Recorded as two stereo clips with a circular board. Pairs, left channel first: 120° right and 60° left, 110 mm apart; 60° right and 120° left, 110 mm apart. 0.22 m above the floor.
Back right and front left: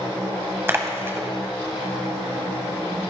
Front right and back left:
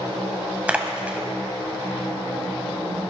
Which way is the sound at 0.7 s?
65° left.